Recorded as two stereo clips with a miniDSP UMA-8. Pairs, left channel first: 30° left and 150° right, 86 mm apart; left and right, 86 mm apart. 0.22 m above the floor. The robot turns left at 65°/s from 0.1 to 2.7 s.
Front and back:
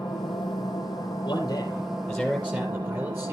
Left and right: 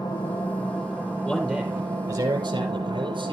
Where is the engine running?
50° left, 5 m; by 3.3 s 120° right, 5 m.